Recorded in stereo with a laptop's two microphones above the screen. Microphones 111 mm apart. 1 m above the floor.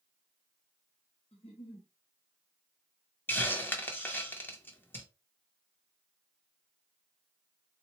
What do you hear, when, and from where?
1.3 s a giggle: 65° left (ahead or behind), 0.8 m
3.3 s a hiss: 20° left (ahead or behind), 0.6 m